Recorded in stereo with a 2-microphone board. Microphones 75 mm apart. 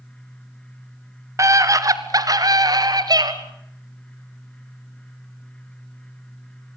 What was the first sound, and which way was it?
A scream, 45° right (ahead or behind).